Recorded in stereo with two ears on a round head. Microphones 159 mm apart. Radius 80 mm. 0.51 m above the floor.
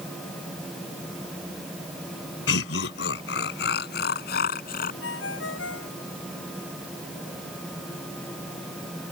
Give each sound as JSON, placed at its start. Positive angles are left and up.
{"t": 2.5, "sound": "laughter", "side_deg": 80}
{"t": 5.0, "sound": "a ringtone", "side_deg": 80}